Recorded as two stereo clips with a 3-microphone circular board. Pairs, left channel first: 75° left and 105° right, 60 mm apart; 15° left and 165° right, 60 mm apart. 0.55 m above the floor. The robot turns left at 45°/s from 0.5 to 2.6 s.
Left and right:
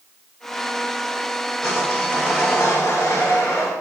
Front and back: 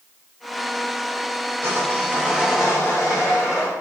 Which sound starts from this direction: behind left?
Sawing, at 1.6 s.